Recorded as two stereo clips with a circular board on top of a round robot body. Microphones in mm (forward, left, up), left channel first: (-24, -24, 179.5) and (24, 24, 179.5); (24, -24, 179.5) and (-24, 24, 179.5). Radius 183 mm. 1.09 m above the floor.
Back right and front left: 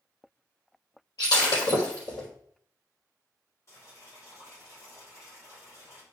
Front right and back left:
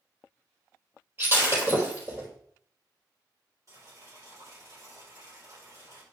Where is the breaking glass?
165° right, 4 m.